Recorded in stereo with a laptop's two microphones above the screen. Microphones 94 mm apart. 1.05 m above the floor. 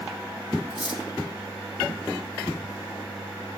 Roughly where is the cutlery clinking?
Left.